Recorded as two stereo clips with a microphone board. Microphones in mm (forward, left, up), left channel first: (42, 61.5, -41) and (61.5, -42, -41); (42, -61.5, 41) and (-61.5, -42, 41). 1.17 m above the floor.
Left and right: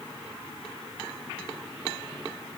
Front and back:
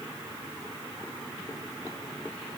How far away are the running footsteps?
I don't hear running footsteps.